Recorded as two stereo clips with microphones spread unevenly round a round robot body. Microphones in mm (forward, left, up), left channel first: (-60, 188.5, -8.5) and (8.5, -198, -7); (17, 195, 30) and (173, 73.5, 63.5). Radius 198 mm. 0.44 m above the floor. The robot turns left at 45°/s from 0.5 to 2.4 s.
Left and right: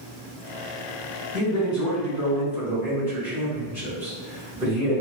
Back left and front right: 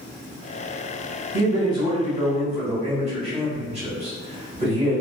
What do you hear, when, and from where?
1.3 s a man speaking: 50° left, 1.5 m; by 5.0 s straight ahead, 1.5 m